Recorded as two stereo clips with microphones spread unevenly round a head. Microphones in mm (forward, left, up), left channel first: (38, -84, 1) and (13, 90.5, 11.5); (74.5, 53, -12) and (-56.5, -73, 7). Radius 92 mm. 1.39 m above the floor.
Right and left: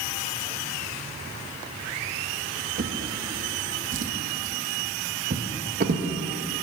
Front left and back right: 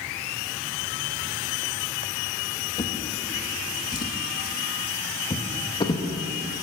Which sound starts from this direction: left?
A drawer, at 2.8 s.